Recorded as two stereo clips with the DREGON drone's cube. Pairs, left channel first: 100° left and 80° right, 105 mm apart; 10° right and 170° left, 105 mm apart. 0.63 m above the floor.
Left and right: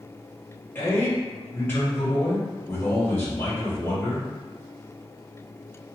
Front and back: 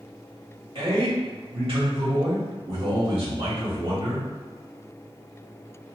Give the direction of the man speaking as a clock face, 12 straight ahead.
6 o'clock.